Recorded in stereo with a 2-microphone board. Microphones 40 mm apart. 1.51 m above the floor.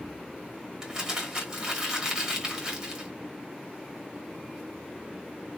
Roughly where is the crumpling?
Centre.